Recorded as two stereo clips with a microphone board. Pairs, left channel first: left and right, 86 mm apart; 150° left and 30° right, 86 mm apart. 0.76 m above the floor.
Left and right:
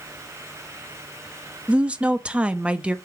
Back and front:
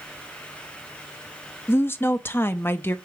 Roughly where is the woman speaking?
Behind.